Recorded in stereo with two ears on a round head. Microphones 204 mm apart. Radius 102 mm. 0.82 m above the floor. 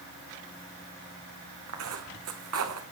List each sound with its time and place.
1.7 s footsteps: 70° right (ahead or behind), 2.5 m